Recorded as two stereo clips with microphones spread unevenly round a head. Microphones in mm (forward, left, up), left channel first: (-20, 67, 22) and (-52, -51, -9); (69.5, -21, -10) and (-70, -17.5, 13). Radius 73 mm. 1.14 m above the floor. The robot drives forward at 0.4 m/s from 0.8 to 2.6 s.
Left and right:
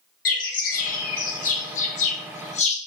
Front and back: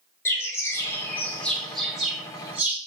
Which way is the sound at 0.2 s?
75° left.